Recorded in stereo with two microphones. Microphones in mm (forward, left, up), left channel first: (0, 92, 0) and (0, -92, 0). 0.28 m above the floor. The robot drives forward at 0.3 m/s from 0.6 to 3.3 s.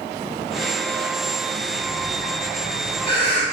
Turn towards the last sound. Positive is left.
turn(degrees=-70)  # may be behind; listen again after turning